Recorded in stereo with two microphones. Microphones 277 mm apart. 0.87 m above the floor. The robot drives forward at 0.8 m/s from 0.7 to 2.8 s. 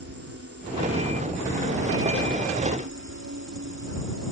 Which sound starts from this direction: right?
An insect, at 0.0 s.